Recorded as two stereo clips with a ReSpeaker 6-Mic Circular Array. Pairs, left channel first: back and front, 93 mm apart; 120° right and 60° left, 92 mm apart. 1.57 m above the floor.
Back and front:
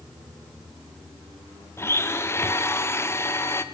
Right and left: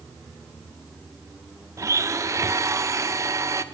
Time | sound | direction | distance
1.8 | a blender | 115° left | 0.9 m